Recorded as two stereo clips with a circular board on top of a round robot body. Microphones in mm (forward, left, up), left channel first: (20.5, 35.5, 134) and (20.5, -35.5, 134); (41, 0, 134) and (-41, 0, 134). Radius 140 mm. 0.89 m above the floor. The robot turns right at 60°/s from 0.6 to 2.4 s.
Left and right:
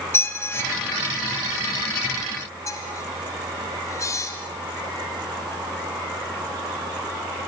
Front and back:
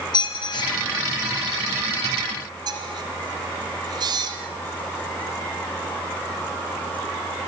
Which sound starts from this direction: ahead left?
A squeak, at 0.1 s.